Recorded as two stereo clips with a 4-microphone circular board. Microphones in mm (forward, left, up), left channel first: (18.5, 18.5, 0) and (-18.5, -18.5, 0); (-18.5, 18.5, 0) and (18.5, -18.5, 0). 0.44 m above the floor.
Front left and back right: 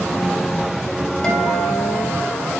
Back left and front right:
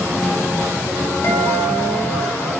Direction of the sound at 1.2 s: 110° left.